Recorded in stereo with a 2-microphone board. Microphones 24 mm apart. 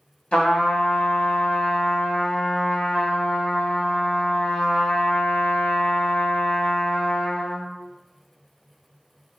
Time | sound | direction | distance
0.3 | a trumpet | 50° left (ahead or behind) | 0.9 m